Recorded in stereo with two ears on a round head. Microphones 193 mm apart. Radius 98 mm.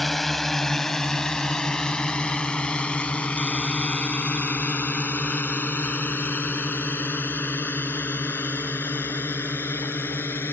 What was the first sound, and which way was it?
A drone, centre (ahead or behind).